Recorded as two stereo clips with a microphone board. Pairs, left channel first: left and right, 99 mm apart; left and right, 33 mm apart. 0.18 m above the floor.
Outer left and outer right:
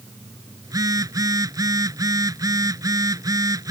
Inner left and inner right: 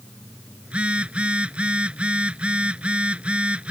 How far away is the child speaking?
No child speaking in this recording.